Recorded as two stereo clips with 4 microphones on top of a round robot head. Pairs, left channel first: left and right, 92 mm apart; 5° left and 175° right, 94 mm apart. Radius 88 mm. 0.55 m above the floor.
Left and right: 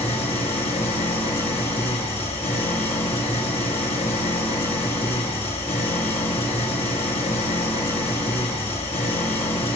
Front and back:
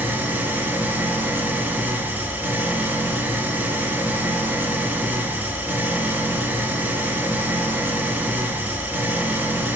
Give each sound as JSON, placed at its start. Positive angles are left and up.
{"t": 0.0, "sound": "an engine running", "azimuth_deg": 115, "distance_m": 2.5}